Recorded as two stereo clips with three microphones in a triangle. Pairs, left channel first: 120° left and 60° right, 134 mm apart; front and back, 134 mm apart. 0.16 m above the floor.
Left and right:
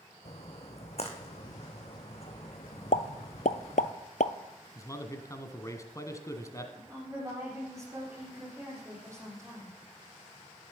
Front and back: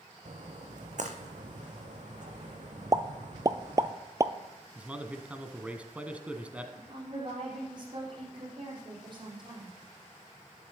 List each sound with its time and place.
0.2 s a splash: 155° left, 2.0 m
2.9 s a pop: 120° left, 0.6 m
4.8 s a man speaking: 115° left, 1.2 m
6.8 s a woman speaking: 125° right, 6.5 m